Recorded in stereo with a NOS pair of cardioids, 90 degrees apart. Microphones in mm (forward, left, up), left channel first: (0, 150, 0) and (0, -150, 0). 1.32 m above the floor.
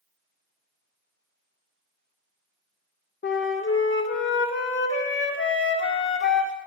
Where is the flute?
40° left, 1.5 m.